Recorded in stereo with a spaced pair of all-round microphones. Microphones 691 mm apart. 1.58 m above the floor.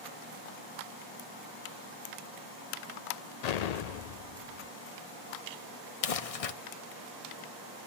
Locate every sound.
3.4 s an explosion: 70° left (ahead or behind), 0.6 m
6.0 s crumpling: 55° left (ahead or behind), 0.7 m